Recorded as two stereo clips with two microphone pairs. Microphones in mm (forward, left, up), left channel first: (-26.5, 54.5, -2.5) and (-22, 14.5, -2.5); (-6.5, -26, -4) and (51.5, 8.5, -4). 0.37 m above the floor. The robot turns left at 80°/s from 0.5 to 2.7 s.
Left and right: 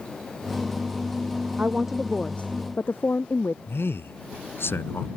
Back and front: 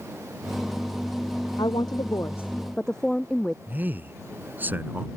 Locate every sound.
1.6 s a woman speaking: 140° right; by 3.6 s 130° left
3.7 s a man speaking: 90° left